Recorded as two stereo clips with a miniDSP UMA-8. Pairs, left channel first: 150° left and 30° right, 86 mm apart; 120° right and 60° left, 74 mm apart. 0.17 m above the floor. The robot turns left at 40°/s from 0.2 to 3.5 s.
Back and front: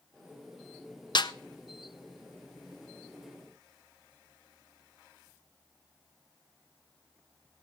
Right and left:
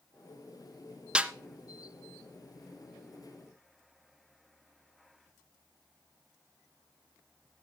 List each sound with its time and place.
1.1 s a snare drum: 135° left, 0.6 m; by 1.3 s 130° left, 0.6 m